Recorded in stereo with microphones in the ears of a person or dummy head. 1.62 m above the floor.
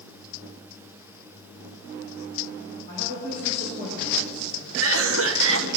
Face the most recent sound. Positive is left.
turn(degrees=-80)